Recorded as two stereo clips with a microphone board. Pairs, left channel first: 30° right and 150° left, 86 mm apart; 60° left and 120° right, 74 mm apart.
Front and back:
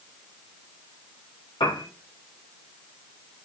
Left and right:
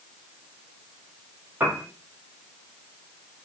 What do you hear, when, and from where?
1.6 s a piano: 55° right, 1.8 m